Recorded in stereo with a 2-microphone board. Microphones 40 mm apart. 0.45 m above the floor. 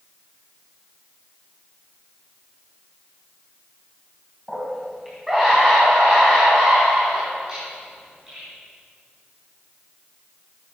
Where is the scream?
5° right (ahead or behind), 3 m; by 8.4 s 20° right (ahead or behind), 7.5 m.